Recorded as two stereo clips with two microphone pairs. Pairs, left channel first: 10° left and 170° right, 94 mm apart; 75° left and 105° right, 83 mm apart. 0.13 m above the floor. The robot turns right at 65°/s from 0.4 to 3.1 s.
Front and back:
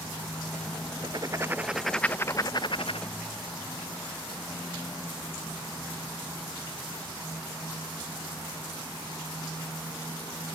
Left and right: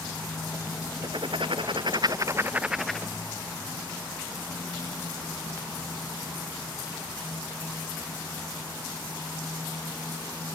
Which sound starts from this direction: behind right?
Writing, at 1.0 s.